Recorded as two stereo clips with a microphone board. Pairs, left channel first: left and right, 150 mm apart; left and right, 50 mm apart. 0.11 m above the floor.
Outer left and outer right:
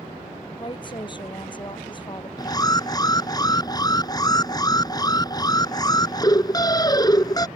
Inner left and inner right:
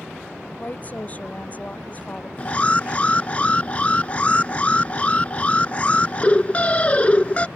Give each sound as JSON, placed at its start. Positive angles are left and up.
{"t": 0.6, "sound": "a woman speaking", "side_deg": 30}
{"t": 2.4, "sound": "an alarm", "side_deg": 25}